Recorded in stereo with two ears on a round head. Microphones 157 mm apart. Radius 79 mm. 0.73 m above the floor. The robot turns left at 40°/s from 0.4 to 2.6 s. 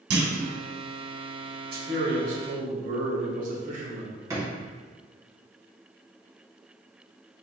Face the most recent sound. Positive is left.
turn(degrees=-20)  # may be behind; listen again after turning